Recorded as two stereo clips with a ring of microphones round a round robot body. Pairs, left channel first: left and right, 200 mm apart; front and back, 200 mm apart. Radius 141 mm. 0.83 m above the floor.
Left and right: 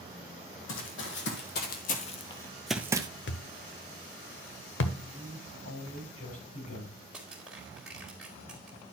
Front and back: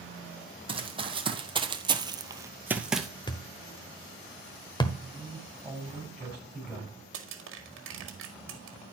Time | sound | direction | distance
0.7 | running footsteps | 120° left | 1.8 m
3.3 | a thud | 70° left | 1.1 m
5.0 | a man speaking | 95° left | 6.5 m
7.1 | crushing | 175° right | 1.7 m